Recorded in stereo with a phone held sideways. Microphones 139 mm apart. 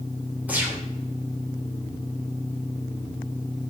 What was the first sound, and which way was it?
A gunshot, 10° right (ahead or behind).